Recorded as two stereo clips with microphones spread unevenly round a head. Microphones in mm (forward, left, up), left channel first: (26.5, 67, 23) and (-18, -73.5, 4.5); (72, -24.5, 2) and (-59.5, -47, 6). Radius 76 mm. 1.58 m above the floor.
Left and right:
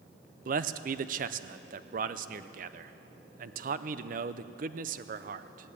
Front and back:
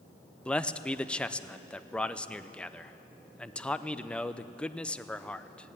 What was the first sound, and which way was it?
A man speaking, 75° right.